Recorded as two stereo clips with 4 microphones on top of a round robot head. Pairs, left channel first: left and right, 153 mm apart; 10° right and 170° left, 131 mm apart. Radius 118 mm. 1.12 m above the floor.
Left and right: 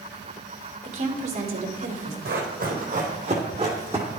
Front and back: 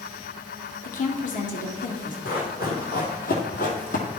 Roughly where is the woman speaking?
Ahead right.